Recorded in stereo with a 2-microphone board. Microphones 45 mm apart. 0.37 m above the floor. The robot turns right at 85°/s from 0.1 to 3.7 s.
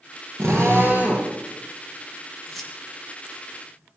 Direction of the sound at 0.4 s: 95° right.